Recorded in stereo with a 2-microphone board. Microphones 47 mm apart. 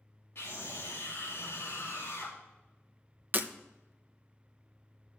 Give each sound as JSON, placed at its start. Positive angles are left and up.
{"t": 0.3, "sound": "a scream", "side_deg": 60, "distance_m": 2.5}
{"t": 3.3, "sound": "breaking glass", "side_deg": -40, "distance_m": 0.7}